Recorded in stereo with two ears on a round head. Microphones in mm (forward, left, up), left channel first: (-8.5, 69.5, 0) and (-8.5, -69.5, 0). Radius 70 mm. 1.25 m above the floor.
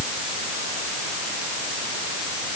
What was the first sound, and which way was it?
Only background noise.